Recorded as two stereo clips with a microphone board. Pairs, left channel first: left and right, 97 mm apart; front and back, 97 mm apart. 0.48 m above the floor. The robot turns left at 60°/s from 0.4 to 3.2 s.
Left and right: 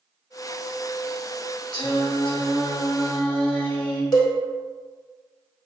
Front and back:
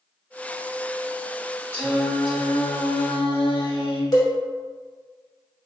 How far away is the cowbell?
About 0.7 m.